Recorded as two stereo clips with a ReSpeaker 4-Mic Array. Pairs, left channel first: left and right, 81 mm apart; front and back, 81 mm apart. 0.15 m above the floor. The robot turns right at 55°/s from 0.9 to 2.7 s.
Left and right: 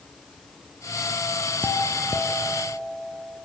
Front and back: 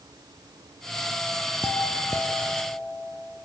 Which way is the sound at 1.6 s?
30° left.